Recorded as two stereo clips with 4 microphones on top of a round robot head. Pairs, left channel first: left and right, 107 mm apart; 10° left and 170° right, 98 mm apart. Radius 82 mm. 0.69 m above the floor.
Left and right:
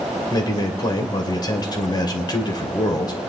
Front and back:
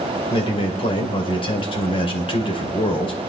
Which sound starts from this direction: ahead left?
A man speaking, at 0.3 s.